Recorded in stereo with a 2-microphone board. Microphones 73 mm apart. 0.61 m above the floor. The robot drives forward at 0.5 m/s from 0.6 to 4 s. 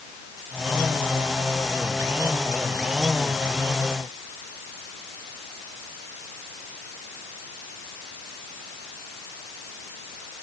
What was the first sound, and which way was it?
Only background noise.